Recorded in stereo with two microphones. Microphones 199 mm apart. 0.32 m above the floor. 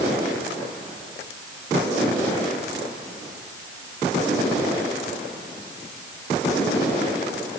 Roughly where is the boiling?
No boiling in this recording.